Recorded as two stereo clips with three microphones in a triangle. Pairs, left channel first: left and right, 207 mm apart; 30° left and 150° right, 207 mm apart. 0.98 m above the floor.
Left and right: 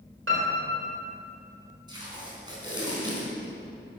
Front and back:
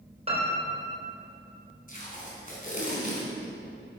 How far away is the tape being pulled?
About 4 m.